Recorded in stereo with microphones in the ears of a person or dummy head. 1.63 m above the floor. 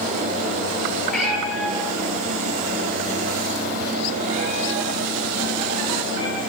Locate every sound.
1.1 s a cat meowing: 5° left (ahead or behind), 3 m; by 6.4 s 55° right (ahead or behind), 6 m